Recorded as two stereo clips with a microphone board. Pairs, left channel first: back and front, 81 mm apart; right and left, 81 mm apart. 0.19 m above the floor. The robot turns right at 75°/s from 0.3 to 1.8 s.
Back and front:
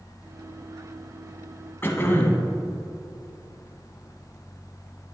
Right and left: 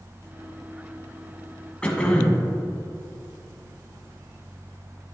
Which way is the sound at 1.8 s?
155° right.